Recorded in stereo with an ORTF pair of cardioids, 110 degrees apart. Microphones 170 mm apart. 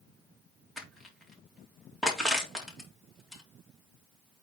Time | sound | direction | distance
0.8 | crushing | straight ahead | 3 m